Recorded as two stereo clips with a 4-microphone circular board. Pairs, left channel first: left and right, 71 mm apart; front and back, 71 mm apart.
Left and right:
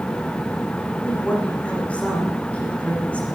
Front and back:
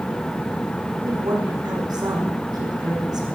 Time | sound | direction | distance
1.1 | a woman speaking | 160° left | 7.5 m